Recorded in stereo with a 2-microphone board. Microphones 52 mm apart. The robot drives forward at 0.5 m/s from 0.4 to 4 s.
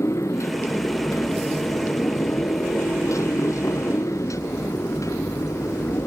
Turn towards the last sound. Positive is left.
turn(degrees=80)